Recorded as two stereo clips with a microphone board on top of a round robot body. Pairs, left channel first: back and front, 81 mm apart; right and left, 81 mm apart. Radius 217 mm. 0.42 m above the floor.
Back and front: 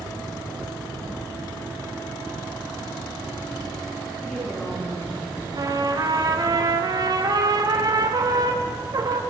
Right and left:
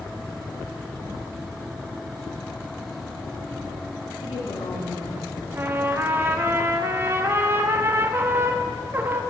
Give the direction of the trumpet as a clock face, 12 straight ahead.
11 o'clock.